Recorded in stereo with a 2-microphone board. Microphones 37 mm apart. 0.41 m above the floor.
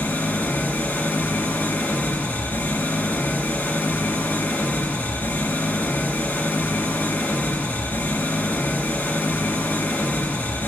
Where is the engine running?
70° left (ahead or behind), 1.9 m.